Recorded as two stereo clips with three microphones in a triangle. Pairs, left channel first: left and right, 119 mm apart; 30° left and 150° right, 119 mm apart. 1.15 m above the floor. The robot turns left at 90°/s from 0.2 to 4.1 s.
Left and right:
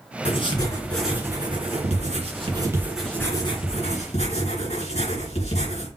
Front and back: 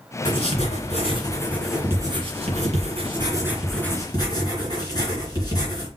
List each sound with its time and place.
0.2 s writing: 70° left, 2.5 m; by 5.9 s 80° left, 2.5 m